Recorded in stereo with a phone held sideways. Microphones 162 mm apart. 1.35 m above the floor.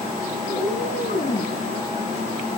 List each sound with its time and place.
0.5 s a cat meowing: 85° left, 9 m